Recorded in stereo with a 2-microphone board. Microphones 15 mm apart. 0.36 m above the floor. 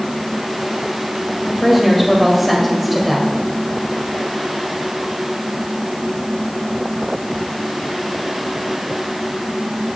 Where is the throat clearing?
No throat clearing in this recording.